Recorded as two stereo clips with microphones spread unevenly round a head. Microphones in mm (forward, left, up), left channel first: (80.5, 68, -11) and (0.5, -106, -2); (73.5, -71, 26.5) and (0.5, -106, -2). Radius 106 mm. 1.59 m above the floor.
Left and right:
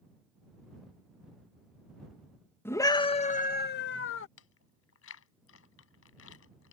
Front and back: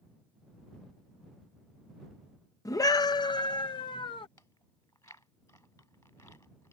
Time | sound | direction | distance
2.6 | a scream | 15° right | ?
4.4 | chewing | 100° left | ?